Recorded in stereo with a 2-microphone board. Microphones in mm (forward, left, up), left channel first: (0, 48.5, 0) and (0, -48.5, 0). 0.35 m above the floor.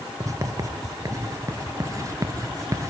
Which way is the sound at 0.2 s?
35° right (ahead or behind).